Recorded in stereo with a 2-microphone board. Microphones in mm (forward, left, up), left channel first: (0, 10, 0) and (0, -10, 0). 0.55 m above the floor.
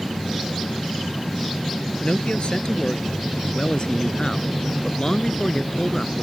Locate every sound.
2.0 s a man speaking: 55° left (ahead or behind); by 6.2 s 35° left (ahead or behind)